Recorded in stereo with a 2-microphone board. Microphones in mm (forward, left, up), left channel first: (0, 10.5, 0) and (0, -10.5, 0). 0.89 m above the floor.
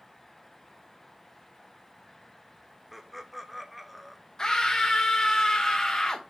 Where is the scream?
30° left (ahead or behind), 0.7 m.